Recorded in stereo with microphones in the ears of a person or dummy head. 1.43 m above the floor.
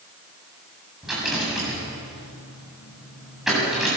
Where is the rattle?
Centre (ahead or behind), 8 m.